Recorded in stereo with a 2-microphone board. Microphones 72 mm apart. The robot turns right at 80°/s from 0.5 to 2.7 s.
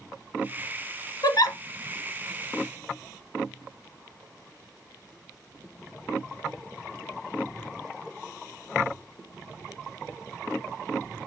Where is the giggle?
65° left (ahead or behind), 0.8 m; by 1.6 s 55° left (ahead or behind), 0.8 m.